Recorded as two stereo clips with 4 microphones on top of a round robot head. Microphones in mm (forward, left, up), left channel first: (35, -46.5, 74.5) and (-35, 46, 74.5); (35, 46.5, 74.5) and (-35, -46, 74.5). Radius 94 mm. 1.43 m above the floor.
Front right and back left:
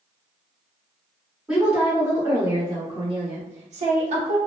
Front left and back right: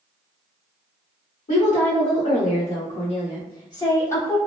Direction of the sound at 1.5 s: 45° left.